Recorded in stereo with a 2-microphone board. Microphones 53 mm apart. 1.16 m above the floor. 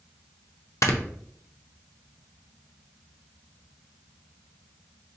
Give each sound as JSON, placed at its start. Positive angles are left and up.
{"t": 0.8, "sound": "snoring", "side_deg": 65, "distance_m": 0.5}